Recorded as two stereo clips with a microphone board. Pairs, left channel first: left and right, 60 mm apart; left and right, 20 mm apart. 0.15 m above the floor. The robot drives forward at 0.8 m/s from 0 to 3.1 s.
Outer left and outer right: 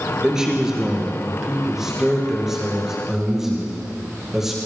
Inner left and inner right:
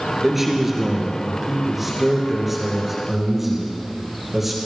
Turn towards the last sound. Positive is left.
turn(degrees=-5)  # may be behind; listen again after turning